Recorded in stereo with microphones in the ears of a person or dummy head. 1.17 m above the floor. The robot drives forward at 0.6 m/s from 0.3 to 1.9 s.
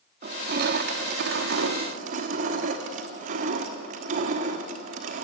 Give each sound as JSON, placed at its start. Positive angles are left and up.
{"t": 0.2, "sound": "crushing", "side_deg": -45, "distance_m": 0.9}